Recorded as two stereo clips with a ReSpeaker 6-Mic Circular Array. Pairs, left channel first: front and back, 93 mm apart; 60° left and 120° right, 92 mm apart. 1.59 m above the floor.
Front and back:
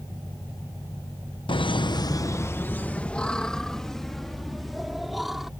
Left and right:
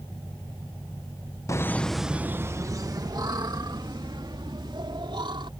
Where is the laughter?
10° left; by 5.5 s 90° right.